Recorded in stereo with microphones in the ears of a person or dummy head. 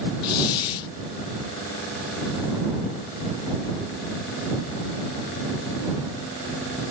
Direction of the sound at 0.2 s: 30° left (ahead or behind).